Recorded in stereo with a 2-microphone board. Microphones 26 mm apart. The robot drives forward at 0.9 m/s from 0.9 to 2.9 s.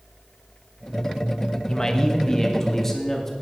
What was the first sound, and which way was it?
A man speaking, 25° left (ahead or behind).